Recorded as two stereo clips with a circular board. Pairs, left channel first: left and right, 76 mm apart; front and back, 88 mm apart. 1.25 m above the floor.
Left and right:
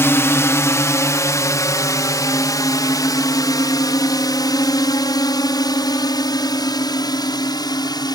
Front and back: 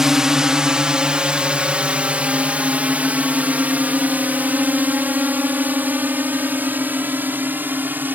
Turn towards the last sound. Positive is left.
turn(degrees=115)